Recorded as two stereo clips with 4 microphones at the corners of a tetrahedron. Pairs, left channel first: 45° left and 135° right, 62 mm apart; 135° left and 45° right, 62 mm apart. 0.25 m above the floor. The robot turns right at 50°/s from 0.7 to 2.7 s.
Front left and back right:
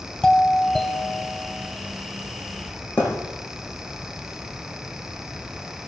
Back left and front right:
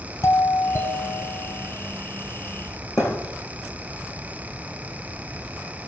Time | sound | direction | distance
0.2 | a doorbell | 115° left | 2 m
3.0 | a thud | 105° left | 6.5 m